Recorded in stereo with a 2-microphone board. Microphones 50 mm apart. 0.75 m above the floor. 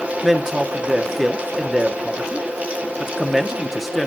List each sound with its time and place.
0.2 s a man speaking: centre (ahead or behind), 0.9 m